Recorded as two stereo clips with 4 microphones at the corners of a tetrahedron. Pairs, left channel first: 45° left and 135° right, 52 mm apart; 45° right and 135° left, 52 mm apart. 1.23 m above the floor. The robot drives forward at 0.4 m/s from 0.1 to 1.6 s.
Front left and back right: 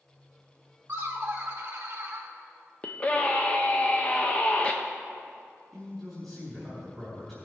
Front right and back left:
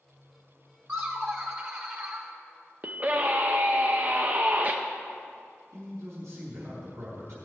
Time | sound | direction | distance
0.9 | laughter | 170° left | 1.3 m
2.8 | a scream | 100° left | 0.6 m
5.7 | a man speaking | 130° left | 3.5 m